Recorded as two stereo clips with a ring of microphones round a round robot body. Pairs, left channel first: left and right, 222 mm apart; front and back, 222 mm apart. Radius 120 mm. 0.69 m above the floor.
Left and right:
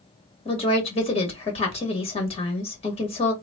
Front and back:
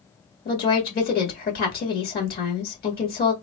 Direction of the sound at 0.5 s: 35° left.